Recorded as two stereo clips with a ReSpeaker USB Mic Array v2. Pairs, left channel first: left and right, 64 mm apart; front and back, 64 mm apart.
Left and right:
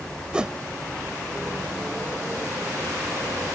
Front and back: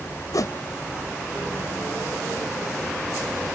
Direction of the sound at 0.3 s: 15° right.